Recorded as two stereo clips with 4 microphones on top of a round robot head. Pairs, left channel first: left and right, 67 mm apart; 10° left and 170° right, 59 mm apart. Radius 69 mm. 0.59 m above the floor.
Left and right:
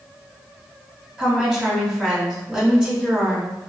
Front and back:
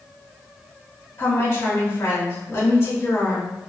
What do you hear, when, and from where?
1.2 s a woman speaking: 20° right, 1.8 m